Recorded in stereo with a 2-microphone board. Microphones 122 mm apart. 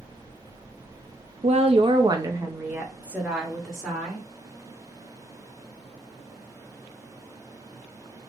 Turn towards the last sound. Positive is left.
turn(degrees=0)  # may be behind; listen again after turning